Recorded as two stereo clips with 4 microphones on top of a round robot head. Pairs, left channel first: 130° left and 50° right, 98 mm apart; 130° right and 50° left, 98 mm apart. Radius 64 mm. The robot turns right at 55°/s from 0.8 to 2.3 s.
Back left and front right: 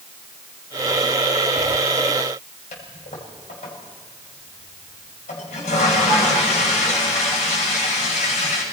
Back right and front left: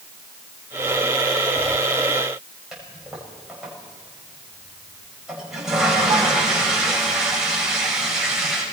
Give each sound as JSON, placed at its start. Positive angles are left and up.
{"t": 2.7, "sound": "a toilet flushing", "azimuth_deg": 135, "distance_m": 7.0}